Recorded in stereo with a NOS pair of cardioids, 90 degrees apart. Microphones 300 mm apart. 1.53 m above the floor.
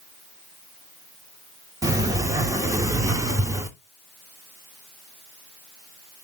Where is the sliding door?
10° right, 0.8 m.